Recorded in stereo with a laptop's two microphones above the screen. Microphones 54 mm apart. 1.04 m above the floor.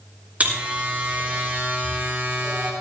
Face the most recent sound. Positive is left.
turn(degrees=-30)  # may be behind; listen again after turning